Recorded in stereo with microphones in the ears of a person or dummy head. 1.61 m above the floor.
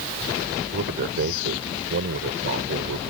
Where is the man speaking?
55° right (ahead or behind).